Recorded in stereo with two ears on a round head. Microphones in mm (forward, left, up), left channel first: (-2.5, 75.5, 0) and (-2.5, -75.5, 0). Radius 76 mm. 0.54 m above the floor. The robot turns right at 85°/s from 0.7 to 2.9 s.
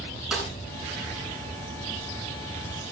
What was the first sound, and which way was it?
A snare drum, 5° right (ahead or behind).